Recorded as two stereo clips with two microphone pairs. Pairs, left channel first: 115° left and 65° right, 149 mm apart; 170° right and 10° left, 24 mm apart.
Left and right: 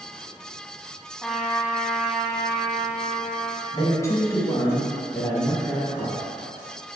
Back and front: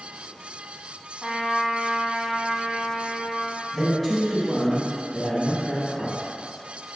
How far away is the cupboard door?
No cupboard door in this recording.